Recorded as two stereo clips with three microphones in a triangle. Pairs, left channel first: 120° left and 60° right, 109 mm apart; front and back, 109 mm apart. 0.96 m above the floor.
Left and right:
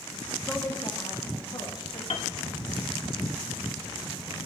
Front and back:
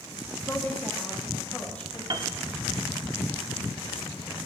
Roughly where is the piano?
Behind left.